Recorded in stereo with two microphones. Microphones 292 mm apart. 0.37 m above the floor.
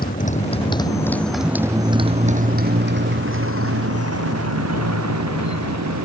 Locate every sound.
0.0 s a motorcycle: 30° left (ahead or behind); by 6.0 s 70° right (ahead or behind)